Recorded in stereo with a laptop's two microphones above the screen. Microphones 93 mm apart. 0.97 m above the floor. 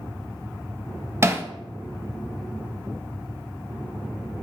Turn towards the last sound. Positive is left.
turn(degrees=-25)  # may be behind; listen again after turning